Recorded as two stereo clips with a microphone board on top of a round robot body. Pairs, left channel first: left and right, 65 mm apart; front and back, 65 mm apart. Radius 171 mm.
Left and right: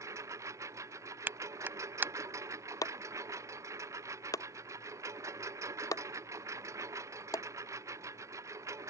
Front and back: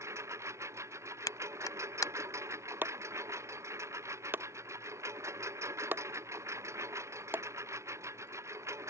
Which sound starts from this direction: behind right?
A lawn mower, at 0.0 s.